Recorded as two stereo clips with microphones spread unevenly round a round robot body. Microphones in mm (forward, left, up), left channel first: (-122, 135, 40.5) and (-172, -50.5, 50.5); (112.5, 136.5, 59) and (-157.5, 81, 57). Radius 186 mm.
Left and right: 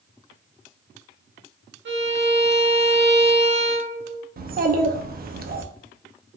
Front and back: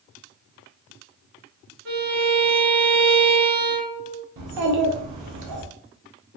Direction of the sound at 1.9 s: 120° right.